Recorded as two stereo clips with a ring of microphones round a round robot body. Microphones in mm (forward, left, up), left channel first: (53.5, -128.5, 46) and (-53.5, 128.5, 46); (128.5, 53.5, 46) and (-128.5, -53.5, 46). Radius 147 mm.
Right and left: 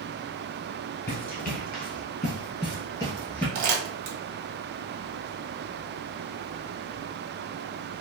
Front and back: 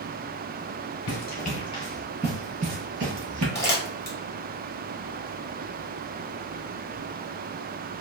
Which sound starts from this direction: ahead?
Running footsteps, at 1.1 s.